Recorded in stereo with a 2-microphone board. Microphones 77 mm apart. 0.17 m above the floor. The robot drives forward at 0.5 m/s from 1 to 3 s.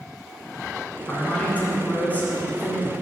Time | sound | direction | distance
1.1 | a man speaking | 20° left (ahead or behind) | 1.9 m